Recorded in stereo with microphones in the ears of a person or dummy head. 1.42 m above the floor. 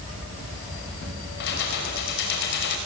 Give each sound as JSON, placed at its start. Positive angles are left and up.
{"t": 1.4, "sound": "keys jangling", "side_deg": 60, "distance_m": 4.5}